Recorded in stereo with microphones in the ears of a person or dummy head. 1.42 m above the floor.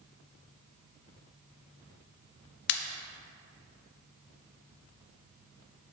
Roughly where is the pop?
Left.